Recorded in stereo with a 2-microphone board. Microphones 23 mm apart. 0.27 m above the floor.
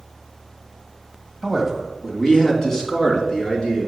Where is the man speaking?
Centre (ahead or behind), 1.4 m; by 3.9 s 35° left (ahead or behind), 3.5 m.